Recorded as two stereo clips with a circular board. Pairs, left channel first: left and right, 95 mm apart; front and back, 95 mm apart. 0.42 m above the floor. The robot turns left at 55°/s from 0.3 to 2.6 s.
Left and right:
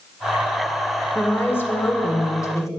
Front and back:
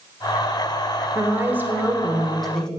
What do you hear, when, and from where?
1.1 s a woman speaking: 155° left, 0.8 m; by 2.7 s 80° left, 0.8 m